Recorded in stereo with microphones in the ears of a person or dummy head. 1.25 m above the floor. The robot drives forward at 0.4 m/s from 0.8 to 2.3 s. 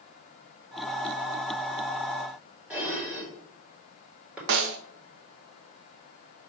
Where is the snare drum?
60° right (ahead or behind), 0.7 m.